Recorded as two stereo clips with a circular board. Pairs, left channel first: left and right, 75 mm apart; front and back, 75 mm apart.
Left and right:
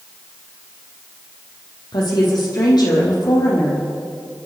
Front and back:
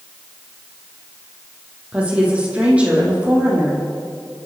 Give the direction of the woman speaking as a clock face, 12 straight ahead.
8 o'clock.